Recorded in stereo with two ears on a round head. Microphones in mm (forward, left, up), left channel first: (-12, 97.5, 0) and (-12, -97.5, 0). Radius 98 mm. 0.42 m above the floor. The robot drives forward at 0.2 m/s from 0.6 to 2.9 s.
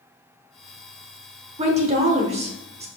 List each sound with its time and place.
1.6 s a woman speaking: 30° right (ahead or behind), 0.9 m